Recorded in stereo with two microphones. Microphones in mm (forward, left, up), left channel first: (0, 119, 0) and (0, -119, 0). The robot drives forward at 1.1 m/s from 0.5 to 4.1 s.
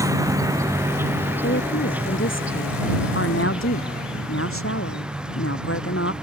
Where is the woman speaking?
55° left (ahead or behind); by 6.1 s 70° left (ahead or behind).